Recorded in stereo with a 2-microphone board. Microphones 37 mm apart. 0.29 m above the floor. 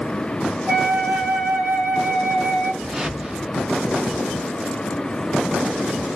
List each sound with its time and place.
0.7 s a flute: 50° right (ahead or behind), 1.1 m
2.8 s a whoosh: 15° right (ahead or behind), 0.6 m